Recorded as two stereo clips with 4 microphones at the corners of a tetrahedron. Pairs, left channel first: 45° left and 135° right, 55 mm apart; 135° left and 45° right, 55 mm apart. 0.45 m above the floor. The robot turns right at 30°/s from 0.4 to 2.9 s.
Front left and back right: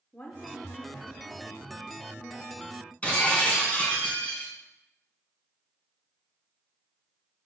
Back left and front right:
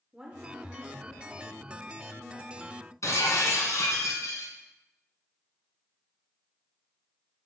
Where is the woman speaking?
15° left, 0.9 m; by 2.8 s 90° left, 0.9 m.